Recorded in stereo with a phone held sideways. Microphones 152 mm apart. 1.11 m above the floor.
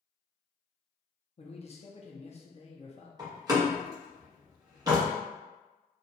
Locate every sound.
1.4 s a man speaking: 45° left (ahead or behind), 0.7 m
3.2 s a door slam: 25° right (ahead or behind), 1.1 m